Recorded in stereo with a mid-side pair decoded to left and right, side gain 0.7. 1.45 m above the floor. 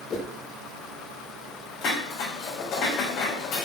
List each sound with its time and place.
0.1 s a whoosh: 35° left, 1.2 m
1.8 s dishes clattering: 45° left, 3.5 m